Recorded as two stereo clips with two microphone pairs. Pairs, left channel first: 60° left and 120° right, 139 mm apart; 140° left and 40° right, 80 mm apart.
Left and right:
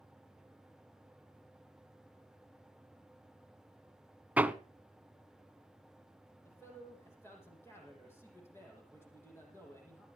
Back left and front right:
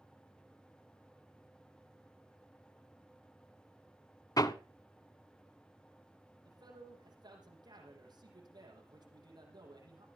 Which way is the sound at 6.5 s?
15° right.